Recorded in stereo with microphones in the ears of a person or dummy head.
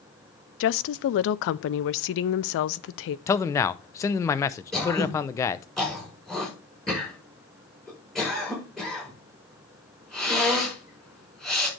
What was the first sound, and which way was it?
A woman speaking, 65° left (ahead or behind).